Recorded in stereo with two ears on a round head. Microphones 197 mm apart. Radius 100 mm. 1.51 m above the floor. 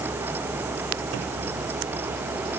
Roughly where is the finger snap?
No finger snap in this recording.